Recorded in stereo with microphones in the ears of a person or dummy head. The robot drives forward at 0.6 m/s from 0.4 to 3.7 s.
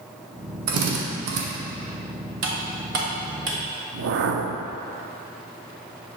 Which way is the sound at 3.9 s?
60° right (ahead or behind).